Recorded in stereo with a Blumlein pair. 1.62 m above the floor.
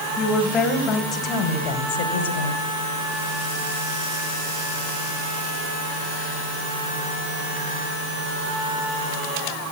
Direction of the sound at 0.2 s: 5° left.